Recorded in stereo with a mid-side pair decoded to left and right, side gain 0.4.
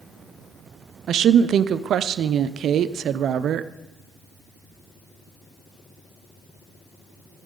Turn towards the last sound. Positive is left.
turn(degrees=-70)